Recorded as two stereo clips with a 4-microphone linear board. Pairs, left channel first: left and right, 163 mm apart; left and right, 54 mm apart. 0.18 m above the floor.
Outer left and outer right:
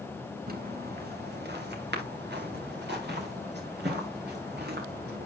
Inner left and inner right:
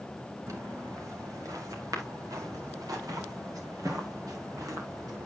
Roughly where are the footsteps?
Right.